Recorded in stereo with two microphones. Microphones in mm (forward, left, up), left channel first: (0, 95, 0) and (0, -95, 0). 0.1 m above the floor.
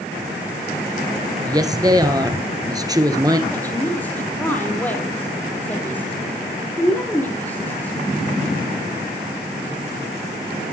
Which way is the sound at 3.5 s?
10° left (ahead or behind).